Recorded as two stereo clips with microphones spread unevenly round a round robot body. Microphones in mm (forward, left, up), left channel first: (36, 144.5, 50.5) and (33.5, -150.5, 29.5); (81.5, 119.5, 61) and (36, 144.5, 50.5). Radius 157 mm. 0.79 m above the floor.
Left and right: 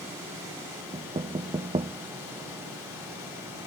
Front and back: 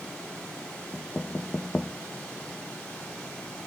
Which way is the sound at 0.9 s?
110° right.